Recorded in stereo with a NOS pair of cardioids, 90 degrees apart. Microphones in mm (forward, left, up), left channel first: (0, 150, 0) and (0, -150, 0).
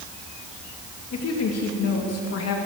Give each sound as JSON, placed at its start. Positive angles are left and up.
{"t": 1.1, "sound": "a woman speaking", "azimuth_deg": 55, "distance_m": 2.5}